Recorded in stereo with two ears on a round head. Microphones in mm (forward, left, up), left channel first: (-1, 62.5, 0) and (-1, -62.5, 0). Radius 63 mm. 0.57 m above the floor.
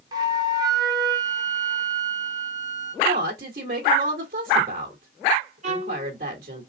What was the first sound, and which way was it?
A flute, 30° right (ahead or behind).